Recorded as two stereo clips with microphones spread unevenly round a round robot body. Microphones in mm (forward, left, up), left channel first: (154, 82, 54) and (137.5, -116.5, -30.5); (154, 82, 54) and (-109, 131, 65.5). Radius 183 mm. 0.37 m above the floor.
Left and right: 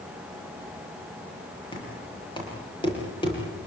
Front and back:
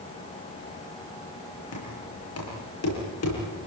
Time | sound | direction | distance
1.7 | knocking | 15° left | 10 m